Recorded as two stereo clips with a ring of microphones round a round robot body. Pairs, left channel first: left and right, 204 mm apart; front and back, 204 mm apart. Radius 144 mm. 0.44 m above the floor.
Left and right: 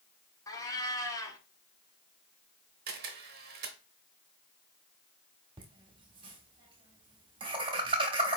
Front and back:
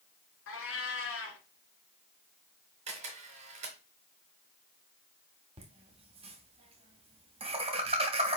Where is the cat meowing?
15° left, 1.2 m.